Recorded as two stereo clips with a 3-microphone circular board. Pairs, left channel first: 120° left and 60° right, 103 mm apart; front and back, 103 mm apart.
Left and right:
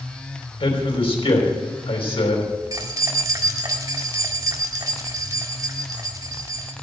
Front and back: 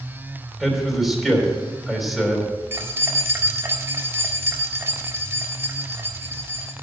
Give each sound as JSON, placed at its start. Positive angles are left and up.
{"t": 0.6, "sound": "a man speaking", "azimuth_deg": 90, "distance_m": 3.5}
{"t": 2.7, "sound": "keys jangling", "azimuth_deg": -115, "distance_m": 1.5}